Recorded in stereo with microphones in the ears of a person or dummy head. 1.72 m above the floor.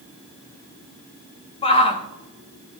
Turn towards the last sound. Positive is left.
turn(degrees=25)  # may be behind; listen again after turning